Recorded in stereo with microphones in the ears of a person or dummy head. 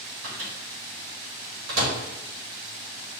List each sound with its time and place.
0.2 s a microwave: 70° right (ahead or behind), 1.4 m